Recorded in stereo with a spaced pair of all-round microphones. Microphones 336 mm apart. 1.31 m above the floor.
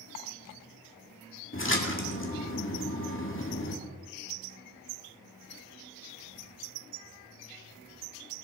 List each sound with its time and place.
1.5 s a splash: 35° left (ahead or behind), 2 m